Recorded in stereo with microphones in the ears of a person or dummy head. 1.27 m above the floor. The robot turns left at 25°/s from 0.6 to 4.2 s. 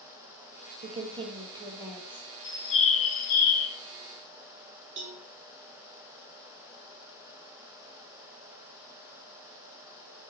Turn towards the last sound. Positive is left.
turn(degrees=-55)  # may be behind; listen again after turning